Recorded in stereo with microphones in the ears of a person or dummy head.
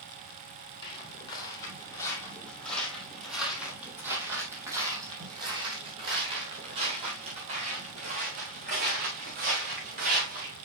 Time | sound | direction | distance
0.8 | footsteps | 30° left (ahead or behind) | 3 m